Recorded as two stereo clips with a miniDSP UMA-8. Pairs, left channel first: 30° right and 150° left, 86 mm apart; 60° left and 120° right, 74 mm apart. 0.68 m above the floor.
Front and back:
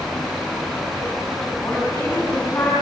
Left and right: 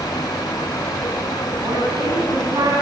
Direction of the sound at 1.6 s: 95° right.